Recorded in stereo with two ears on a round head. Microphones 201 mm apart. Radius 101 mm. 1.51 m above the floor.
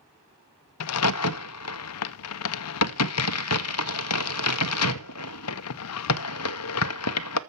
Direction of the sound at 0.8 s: 75° left (ahead or behind).